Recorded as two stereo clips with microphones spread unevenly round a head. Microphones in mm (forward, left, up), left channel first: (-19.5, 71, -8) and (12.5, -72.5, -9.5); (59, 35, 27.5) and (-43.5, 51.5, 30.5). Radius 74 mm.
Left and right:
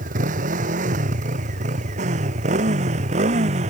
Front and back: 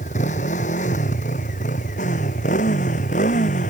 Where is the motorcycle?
35° right; by 3.7 s 30° right.